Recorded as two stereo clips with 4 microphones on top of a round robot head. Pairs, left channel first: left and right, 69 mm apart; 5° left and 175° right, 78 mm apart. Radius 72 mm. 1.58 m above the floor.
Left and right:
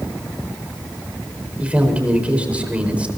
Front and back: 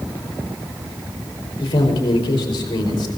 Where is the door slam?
I don't hear a door slam.